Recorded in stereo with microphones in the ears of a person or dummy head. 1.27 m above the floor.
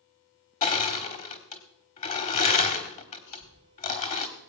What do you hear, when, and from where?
0.6 s crushing: 40° left (ahead or behind), 1.2 m
3.3 s a cough: 70° left (ahead or behind), 5.5 m